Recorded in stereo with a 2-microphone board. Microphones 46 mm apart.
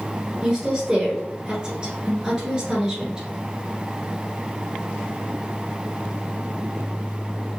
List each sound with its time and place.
0.4 s a woman speaking: 20° right (ahead or behind), 1.4 m